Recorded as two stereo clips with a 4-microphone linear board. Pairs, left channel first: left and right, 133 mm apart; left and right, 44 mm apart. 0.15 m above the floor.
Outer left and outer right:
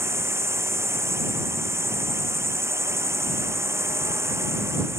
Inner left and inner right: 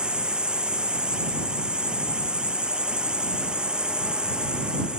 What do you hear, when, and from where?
0.0 s a drone: 20° right (ahead or behind)